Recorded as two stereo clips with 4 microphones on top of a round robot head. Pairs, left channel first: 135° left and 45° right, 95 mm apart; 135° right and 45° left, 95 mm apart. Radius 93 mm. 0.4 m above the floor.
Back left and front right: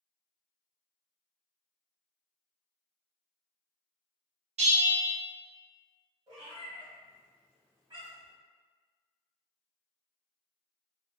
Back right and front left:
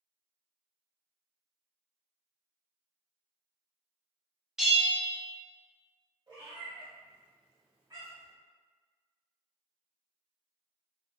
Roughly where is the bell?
Ahead right.